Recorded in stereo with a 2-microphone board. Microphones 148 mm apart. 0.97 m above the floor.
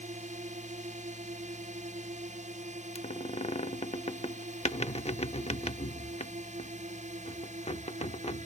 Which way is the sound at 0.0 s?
50° right (ahead or behind).